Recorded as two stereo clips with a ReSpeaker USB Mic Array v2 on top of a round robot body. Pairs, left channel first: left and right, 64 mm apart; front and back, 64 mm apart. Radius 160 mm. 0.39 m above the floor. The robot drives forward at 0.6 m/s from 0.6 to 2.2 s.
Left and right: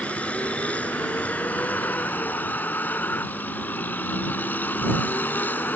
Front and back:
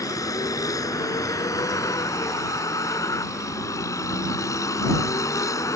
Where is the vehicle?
20° left; by 5.8 s 30° left.